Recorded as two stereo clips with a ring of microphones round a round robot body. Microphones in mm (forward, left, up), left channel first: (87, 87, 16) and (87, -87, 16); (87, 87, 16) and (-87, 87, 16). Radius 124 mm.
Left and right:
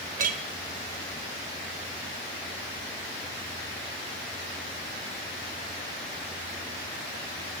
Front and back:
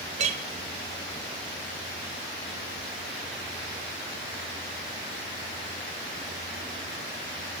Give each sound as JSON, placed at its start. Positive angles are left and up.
{"t": 0.2, "sound": "a clink", "azimuth_deg": -130, "distance_m": 0.9}